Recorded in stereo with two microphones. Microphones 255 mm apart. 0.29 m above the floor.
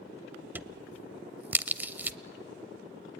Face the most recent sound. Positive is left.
turn(degrees=-5)  # may be behind; listen again after turning